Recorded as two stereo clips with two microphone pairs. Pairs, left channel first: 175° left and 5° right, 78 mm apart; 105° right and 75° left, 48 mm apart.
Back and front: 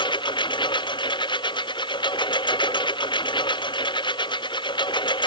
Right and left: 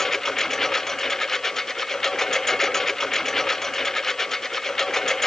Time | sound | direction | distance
0.0 | a lawn mower | 175° left | ?